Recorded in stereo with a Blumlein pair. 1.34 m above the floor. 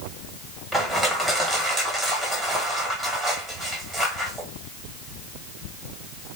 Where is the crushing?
10° right, 1.4 m.